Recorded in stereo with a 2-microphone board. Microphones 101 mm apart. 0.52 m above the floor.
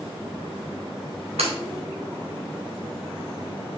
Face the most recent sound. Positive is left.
turn(degrees=-80)